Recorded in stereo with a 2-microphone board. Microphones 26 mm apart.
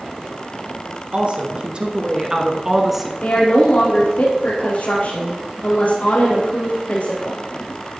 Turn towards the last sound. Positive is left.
turn(degrees=65)  # may be behind; listen again after turning